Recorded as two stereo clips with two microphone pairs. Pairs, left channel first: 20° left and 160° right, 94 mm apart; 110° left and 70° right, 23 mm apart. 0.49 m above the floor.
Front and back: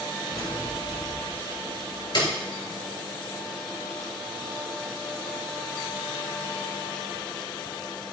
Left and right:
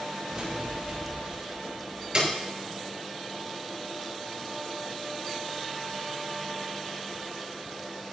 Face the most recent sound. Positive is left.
turn(degrees=-20)